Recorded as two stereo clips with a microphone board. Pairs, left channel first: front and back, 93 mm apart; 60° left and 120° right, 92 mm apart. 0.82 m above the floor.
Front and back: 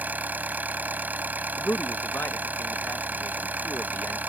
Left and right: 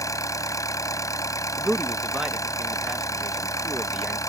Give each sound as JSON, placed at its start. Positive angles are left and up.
{"t": 0.0, "sound": "an engine running", "azimuth_deg": 110}
{"t": 1.6, "sound": "a man speaking", "azimuth_deg": -45}